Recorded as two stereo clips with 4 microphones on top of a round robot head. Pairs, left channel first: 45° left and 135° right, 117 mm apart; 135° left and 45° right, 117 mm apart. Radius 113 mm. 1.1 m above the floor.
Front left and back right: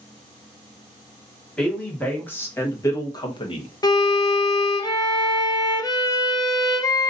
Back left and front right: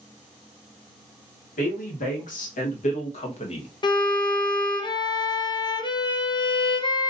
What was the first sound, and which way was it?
A woman speaking, 125° left.